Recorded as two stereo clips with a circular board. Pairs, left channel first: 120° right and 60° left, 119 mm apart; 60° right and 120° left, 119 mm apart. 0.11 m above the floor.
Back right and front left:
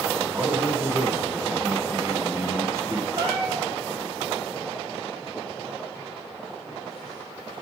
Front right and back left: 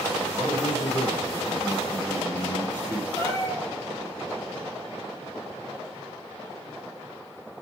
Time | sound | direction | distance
0.3 | a man speaking | 5° left | 1.5 m
3.2 | a cat meowing | 5° left | 1.2 m